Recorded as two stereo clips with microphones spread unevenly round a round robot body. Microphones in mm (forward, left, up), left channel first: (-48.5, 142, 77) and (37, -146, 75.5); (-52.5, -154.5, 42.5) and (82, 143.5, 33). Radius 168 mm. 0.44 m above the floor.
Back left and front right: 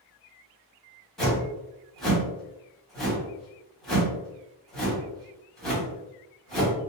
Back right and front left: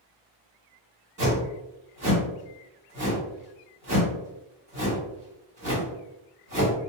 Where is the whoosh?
20° left, 1.6 m.